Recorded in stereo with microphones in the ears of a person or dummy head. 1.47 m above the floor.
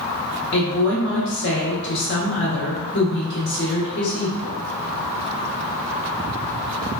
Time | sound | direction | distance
0.5 | a woman speaking | 55° left (ahead or behind) | 1.2 m